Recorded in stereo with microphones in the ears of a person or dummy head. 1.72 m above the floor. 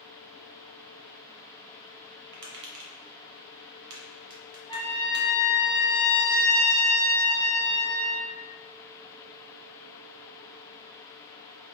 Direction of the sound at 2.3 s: 75° right (ahead or behind).